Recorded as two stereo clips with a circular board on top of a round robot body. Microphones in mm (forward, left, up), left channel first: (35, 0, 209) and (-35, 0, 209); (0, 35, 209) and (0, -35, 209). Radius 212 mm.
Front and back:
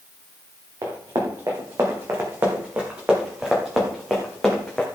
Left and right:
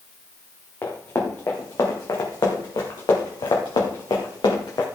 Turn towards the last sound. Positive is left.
turn(degrees=80)